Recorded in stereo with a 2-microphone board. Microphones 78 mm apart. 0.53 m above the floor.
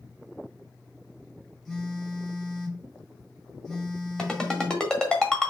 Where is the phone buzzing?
5° left (ahead or behind), 3 m.